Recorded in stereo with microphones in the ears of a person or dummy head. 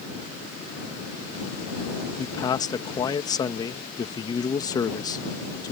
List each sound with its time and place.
2.2 s a man speaking: 25° left (ahead or behind)